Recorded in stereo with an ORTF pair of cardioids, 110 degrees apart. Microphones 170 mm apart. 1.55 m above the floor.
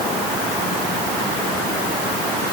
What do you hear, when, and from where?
Only background noise.